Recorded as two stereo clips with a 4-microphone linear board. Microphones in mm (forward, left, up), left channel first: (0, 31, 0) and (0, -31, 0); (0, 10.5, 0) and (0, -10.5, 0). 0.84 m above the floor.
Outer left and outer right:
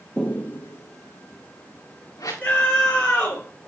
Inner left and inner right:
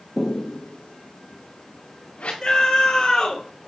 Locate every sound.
0.2 s footsteps: 15° left (ahead or behind), 0.8 m; by 2.3 s 70° left (ahead or behind), 3.5 m
2.4 s a scream: 25° left (ahead or behind), 4 m